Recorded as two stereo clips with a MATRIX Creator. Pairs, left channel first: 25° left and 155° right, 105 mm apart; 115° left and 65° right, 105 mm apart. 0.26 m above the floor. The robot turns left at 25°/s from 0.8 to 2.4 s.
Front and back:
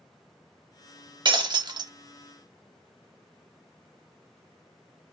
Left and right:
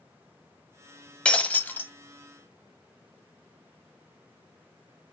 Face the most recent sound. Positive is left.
turn(degrees=160)